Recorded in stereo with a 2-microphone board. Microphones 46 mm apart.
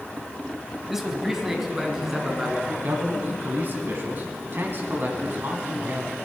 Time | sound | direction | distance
0.9 | a man speaking | 5° right (ahead or behind) | 1.1 m
2.8 | a man speaking | 50° right (ahead or behind) | 1.4 m